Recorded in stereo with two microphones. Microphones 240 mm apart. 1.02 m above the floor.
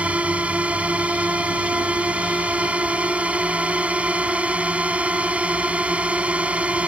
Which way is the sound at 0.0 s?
5° right (ahead or behind).